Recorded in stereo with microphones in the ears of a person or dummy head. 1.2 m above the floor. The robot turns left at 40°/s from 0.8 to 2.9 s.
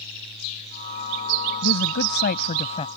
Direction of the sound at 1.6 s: 80° left.